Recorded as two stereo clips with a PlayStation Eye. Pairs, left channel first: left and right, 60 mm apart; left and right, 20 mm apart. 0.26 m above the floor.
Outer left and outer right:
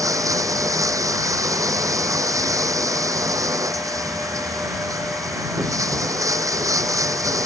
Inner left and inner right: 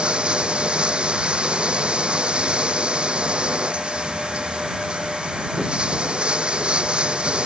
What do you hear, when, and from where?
0.0 s running water: 60° right (ahead or behind)